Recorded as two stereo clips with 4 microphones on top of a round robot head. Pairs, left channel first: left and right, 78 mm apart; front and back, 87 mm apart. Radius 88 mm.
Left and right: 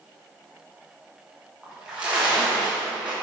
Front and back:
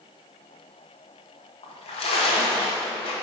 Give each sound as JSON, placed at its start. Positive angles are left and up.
{"t": 1.6, "sound": "a splash", "azimuth_deg": -10, "distance_m": 1.2}